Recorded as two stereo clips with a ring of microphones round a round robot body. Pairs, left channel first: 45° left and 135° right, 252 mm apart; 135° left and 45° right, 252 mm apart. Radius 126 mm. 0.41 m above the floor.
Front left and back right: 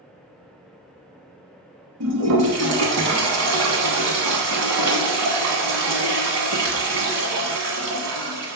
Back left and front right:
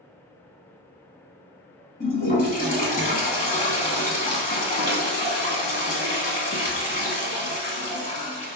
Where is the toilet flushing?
165° right, 1.0 m.